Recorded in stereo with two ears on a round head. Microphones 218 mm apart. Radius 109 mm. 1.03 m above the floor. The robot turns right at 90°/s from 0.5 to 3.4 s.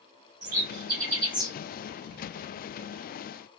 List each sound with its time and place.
0.4 s a bird: 75° right (ahead or behind), 3 m; by 1.5 s 5° left (ahead or behind), 3 m